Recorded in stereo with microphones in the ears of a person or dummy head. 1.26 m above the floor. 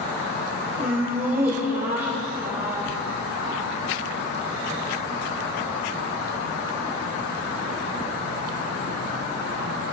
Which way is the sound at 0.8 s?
15° right (ahead or behind).